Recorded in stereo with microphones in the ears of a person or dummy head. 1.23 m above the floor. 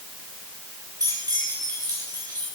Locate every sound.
1.0 s keys jangling: 15° right (ahead or behind), 1.5 m